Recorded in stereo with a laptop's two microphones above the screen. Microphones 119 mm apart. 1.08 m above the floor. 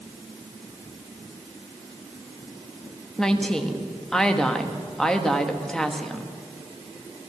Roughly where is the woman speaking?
Centre.